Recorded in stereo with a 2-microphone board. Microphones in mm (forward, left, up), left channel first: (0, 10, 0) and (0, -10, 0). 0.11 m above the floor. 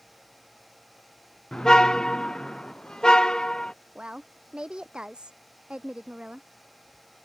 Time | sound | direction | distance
1.5 | a car horn | 25° left (ahead or behind) | ?
4.0 | a woman speaking | 40° right (ahead or behind) | ?